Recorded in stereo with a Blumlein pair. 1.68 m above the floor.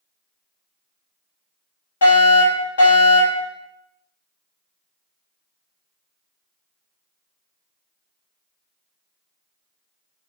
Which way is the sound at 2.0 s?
65° left.